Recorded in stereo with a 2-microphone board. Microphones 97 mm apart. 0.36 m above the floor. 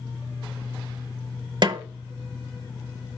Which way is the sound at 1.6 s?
50° right (ahead or behind).